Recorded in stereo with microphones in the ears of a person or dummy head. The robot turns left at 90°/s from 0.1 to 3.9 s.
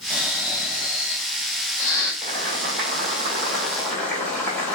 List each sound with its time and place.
0.1 s snoring: 170° right, 1.7 m; by 2.1 s 10° left, 1.7 m
2.2 s boiling: 35° right, 2.0 m; by 4.8 s 175° left, 2.0 m